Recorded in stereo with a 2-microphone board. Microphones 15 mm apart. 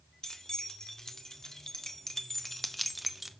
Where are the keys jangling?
55° left (ahead or behind), 3 m; by 3.3 s 15° right (ahead or behind), 1.0 m.